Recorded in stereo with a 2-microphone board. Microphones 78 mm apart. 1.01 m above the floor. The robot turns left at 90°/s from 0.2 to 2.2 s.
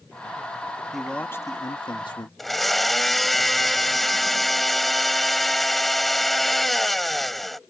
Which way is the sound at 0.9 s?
175° right.